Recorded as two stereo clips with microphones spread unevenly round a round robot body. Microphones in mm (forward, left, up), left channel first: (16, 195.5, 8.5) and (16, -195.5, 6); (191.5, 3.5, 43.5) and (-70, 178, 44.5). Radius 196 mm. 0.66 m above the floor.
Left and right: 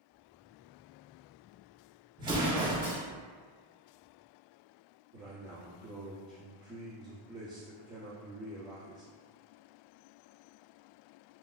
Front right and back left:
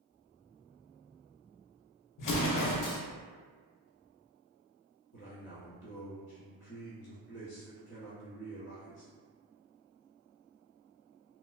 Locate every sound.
2.2 s an explosion: 10° right, 0.6 m
5.1 s a man speaking: 15° right, 1.1 m